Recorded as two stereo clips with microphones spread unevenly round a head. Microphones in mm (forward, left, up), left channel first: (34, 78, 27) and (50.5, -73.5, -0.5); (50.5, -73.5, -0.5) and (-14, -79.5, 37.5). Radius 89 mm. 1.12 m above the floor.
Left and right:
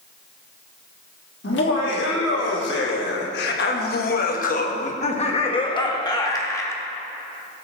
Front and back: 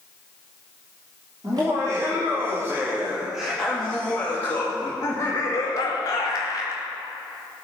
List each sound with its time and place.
1.4 s laughter: 120° left, 3 m; by 6.8 s 20° left, 3 m